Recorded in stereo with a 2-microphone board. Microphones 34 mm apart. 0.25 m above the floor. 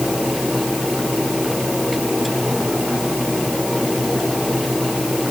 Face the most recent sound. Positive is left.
No sound to turn to.